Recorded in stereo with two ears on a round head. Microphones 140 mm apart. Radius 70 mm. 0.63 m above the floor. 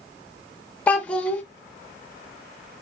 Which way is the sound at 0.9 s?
10° left (ahead or behind).